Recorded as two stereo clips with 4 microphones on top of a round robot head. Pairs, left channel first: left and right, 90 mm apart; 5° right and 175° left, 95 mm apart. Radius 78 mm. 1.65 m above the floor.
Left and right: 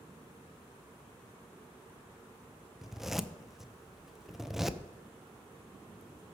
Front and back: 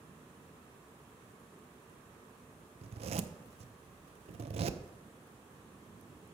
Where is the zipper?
175° right, 0.5 m.